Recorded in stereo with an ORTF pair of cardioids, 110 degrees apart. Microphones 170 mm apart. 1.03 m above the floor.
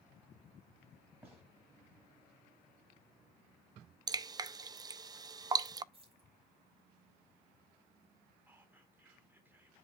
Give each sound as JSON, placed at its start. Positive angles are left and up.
{"t": 1.2, "sound": "a gunshot", "azimuth_deg": -15, "distance_m": 7.5}
{"t": 4.1, "sound": "dripping", "azimuth_deg": -25, "distance_m": 0.5}
{"t": 5.9, "sound": "keys jangling", "azimuth_deg": -30, "distance_m": 4.5}
{"t": 8.5, "sound": "whispering", "azimuth_deg": -10, "distance_m": 2.5}